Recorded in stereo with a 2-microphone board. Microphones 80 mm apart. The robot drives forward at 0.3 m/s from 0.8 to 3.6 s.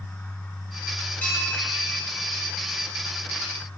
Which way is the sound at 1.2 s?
20° left (ahead or behind).